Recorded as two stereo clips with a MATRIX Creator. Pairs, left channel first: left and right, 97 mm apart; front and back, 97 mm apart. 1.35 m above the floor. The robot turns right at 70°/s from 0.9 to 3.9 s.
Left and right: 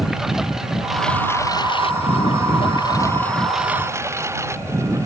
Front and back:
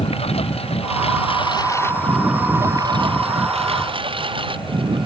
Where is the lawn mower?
5° right; by 5.1 s 150° right.